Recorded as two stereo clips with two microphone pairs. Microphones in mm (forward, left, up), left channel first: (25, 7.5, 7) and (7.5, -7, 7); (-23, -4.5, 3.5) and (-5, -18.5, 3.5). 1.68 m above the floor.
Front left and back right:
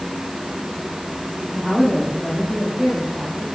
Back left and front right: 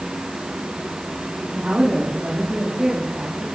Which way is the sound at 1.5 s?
20° right.